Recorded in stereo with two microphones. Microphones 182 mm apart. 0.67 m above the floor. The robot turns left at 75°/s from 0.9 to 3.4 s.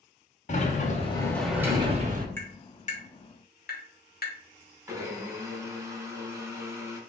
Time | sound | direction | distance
0.5 | a sliding door | 45° left | 0.6 m
2.4 | tapping | 10° left (ahead or behind) | 0.9 m
4.9 | a blender | 15° right (ahead or behind) | 0.8 m